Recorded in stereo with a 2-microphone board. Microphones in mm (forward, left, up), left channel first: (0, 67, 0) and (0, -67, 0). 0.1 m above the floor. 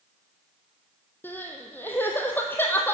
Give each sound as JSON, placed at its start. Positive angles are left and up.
{"t": 1.2, "sound": "crying", "side_deg": 15, "distance_m": 1.5}